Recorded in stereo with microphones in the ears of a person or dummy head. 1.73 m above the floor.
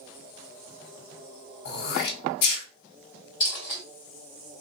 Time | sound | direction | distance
1.6 | throat clearing | 60° left (ahead or behind) | 1.0 m
3.4 | a dropped coin | 25° left (ahead or behind) | 1.6 m